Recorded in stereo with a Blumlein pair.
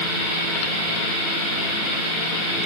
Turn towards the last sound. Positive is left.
No sound to turn to.